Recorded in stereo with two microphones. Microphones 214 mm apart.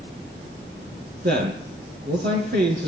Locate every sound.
1.2 s a man speaking: 45° right (ahead or behind), 5 m